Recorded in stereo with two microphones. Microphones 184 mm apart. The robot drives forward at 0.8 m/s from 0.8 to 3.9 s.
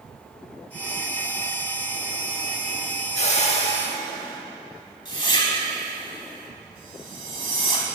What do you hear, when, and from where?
3.1 s a whoosh: 40° left (ahead or behind), 0.6 m; by 7.8 s 25° left (ahead or behind), 0.8 m